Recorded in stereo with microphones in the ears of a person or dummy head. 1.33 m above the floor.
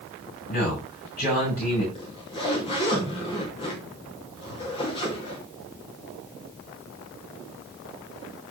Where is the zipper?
30° left (ahead or behind), 3 m.